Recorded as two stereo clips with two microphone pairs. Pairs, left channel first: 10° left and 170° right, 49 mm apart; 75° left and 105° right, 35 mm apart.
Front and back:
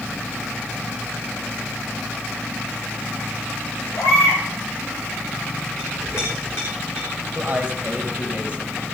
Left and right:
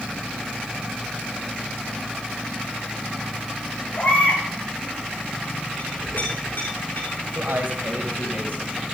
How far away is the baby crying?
About 8.5 m.